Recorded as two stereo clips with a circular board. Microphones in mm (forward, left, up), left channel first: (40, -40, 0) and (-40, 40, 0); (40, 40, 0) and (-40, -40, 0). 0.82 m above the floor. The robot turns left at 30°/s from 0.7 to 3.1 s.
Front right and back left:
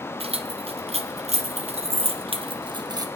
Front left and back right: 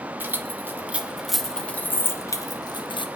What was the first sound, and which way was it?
Keys jangling, 155° left.